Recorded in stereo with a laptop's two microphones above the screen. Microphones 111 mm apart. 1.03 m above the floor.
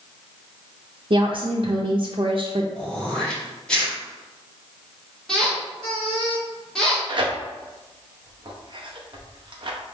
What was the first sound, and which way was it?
A woman speaking, 55° right (ahead or behind).